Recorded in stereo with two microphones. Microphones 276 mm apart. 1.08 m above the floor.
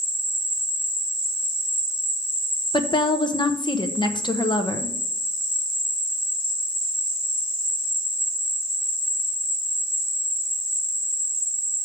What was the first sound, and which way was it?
An insect, 75° right (ahead or behind).